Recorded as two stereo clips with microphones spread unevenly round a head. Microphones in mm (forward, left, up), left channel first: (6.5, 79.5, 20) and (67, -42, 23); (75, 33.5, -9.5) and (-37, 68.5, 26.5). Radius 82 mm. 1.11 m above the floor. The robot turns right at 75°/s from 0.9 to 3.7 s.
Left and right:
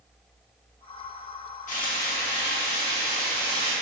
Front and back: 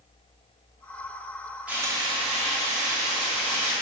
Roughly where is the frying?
Left.